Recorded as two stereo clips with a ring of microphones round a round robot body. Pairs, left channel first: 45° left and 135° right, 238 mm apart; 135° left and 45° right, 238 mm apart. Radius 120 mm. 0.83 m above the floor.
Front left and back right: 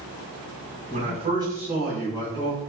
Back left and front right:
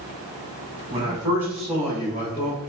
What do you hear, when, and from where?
0.9 s a man speaking: 100° right, 1.2 m; by 2.6 s 90° left, 1.2 m